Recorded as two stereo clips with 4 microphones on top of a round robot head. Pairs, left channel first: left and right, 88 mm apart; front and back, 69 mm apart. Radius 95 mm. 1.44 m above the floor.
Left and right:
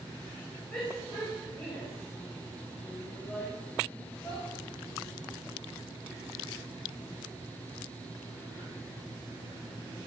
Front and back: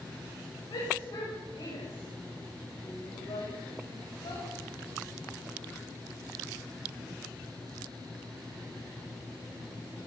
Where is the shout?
15° left, 9 m.